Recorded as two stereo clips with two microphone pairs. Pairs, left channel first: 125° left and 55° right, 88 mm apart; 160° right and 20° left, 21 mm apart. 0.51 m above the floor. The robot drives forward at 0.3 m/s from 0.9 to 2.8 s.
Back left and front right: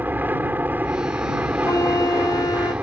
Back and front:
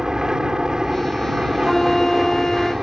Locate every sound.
0.0 s an aircraft: straight ahead
1.6 s a flute: 135° left; by 2.7 s 155° left